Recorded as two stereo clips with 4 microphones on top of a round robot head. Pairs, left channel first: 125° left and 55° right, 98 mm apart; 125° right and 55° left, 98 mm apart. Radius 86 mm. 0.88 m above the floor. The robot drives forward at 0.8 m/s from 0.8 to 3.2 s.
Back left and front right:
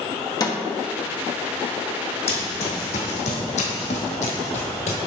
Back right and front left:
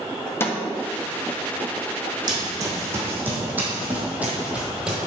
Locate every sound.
0.4 s a snare drum: 170° left, 1.5 m
2.3 s running footsteps: 105° left, 2 m; by 5.1 s 140° left, 1.1 m